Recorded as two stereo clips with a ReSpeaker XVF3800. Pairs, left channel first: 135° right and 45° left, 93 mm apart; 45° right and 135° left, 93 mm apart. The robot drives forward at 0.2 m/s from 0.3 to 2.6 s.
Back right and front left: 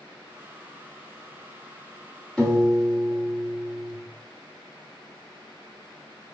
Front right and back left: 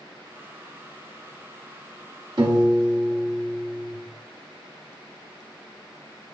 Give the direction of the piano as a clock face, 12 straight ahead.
7 o'clock.